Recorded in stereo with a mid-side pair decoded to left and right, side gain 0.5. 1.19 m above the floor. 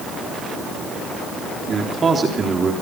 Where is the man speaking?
40° right, 3.5 m.